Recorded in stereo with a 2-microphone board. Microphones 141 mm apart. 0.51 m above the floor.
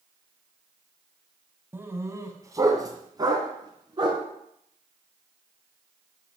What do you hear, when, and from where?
1.7 s a dog barking: 15° right (ahead or behind), 1.4 m; by 4.2 s 35° right (ahead or behind), 3 m